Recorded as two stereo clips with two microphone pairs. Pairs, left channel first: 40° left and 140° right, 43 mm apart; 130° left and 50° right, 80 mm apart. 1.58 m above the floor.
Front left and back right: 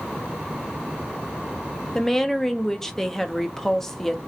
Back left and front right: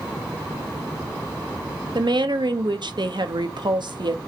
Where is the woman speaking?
35° right, 0.6 m.